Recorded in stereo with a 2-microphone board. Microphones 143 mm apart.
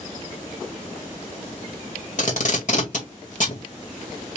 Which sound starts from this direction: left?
Tape being pulled, at 2.2 s.